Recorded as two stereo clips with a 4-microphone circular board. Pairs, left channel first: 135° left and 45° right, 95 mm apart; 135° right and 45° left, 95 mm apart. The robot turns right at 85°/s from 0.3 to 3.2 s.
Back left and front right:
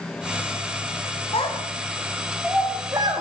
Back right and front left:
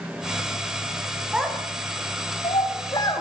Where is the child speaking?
125° left, 9 m; by 3.2 s 75° right, 9 m.